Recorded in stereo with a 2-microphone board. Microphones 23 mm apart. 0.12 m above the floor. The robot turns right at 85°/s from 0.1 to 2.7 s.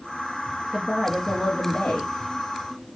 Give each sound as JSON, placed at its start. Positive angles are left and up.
{"t": 0.7, "sound": "a woman speaking", "azimuth_deg": -15, "distance_m": 2.0}